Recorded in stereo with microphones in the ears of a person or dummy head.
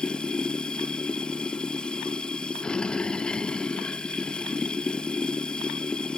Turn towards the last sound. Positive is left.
turn(degrees=5)  # may be behind; listen again after turning